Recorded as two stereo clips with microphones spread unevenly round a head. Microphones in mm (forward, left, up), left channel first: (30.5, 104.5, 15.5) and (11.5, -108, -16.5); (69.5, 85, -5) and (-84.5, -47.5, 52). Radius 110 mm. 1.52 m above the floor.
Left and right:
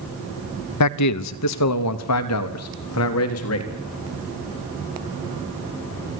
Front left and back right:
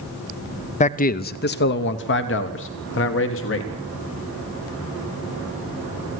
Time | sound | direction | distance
0.8 | a man speaking | 85° left | 0.6 m